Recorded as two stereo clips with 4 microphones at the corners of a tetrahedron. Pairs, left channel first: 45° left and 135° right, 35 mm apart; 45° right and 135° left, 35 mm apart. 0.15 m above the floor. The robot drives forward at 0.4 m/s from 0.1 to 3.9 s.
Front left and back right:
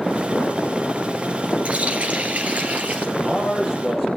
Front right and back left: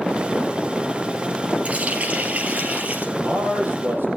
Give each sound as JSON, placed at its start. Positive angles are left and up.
{"t": 1.6, "sound": "a running tap", "azimuth_deg": 180, "distance_m": 1.9}
{"t": 3.2, "sound": "a man speaking", "azimuth_deg": 145, "distance_m": 5.5}